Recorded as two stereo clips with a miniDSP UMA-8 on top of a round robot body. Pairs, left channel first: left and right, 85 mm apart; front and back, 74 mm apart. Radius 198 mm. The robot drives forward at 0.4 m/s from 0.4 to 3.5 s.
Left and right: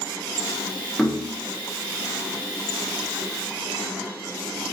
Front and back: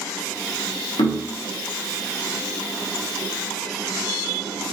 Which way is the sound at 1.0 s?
Straight ahead.